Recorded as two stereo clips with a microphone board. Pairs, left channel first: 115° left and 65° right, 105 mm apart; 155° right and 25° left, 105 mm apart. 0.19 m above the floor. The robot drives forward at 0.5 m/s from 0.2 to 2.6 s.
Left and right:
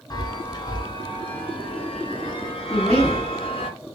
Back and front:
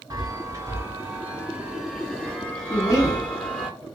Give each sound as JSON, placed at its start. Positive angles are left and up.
{"t": 0.1, "sound": "a chime", "azimuth_deg": 70, "distance_m": 1.4}
{"t": 2.7, "sound": "a woman speaking", "azimuth_deg": -175, "distance_m": 1.8}